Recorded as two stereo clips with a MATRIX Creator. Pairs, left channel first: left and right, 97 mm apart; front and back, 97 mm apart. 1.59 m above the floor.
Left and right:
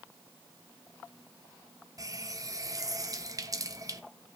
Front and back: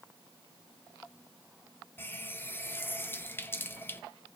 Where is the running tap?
55° right, 0.7 m.